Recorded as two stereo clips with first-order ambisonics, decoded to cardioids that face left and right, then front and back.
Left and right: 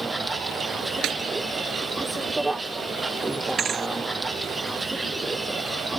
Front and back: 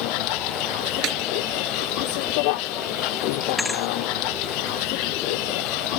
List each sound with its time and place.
0.0 s a vehicle: 5° right
1.0 s a snare drum: 135° right
3.6 s a thud: 75° right